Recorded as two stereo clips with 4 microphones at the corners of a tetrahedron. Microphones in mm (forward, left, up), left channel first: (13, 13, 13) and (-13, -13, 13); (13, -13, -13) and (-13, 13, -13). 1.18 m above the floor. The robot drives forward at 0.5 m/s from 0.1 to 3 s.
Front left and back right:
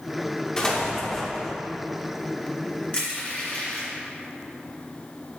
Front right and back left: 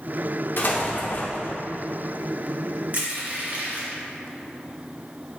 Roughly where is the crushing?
Left.